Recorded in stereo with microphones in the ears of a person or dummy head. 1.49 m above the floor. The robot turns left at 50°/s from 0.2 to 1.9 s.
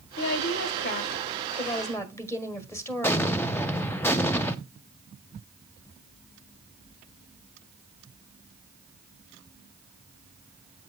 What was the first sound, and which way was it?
A woman speaking, 100° left.